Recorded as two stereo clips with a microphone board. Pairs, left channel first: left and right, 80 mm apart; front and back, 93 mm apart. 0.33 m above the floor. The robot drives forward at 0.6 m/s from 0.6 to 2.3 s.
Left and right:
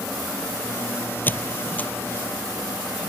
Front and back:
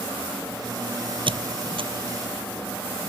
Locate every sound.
1.3 s a squeak: 155° left; by 1.9 s 160° left